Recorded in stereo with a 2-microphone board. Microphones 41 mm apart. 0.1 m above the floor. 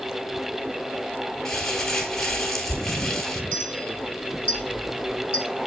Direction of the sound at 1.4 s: 10° left (ahead or behind).